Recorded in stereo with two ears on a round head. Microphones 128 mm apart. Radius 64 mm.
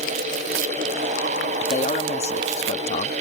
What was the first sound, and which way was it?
A man speaking, 45° left (ahead or behind).